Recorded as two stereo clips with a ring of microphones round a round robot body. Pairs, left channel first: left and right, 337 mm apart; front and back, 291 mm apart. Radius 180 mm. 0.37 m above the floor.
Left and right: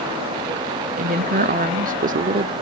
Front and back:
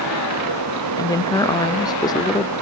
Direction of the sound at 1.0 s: 60° right.